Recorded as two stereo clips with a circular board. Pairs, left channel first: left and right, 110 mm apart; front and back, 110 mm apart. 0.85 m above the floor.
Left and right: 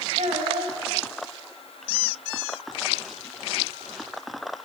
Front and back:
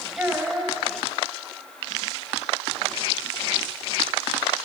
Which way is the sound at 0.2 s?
100° right.